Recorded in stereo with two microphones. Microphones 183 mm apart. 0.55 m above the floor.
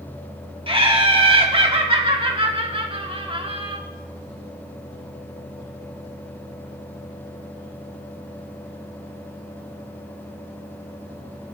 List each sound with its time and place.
0.7 s laughter: 30° right (ahead or behind), 1.4 m